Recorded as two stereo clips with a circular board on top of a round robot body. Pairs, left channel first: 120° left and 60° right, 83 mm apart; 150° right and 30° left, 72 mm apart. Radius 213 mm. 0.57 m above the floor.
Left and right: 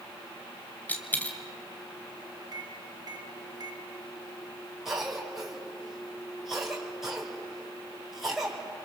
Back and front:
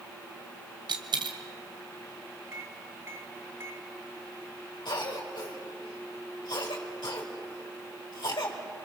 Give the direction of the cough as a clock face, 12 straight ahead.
5 o'clock.